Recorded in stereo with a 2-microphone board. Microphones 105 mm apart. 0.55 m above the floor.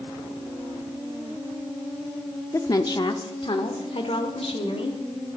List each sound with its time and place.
2.5 s a woman speaking: 30° left (ahead or behind), 0.7 m; by 5.0 s 70° left (ahead or behind), 1.8 m